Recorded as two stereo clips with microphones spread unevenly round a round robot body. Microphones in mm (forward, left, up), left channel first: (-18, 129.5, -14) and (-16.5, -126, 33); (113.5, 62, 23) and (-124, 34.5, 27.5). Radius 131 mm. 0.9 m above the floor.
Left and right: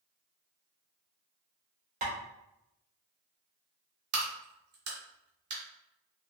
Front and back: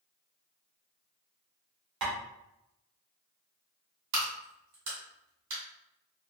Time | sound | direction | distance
2.0 | tapping | 145° right | 1.3 m
4.1 | a crack | 130° right | 1.5 m